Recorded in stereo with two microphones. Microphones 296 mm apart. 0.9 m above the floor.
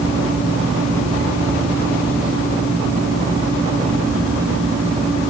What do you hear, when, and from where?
Only background noise.